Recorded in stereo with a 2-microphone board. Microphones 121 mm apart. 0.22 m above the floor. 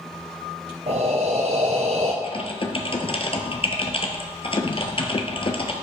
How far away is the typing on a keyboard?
About 0.9 m.